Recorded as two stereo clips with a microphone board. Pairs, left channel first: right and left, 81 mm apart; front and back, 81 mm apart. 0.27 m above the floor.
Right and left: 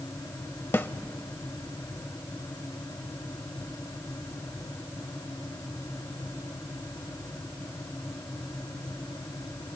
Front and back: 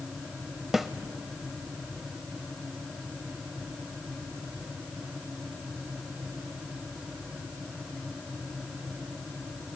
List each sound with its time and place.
0.7 s a snare drum: 100° right, 0.6 m